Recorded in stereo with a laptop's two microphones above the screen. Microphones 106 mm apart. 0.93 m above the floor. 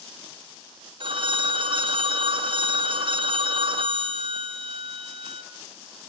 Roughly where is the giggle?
No giggle in this recording.